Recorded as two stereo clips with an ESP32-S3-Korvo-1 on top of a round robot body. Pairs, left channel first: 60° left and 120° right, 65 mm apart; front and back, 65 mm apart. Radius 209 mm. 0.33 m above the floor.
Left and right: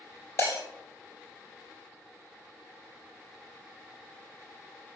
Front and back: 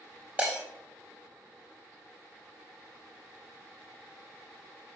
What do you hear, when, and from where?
0.4 s breaking glass: 105° left, 3.5 m